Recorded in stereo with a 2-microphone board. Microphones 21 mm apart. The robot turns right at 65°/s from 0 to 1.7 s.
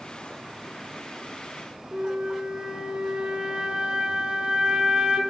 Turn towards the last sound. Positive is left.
turn(degrees=-45)  # may be behind; listen again after turning